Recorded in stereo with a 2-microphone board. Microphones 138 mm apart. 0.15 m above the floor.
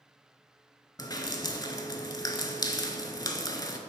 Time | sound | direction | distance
1.0 | dripping | 30° left (ahead or behind) | 0.6 m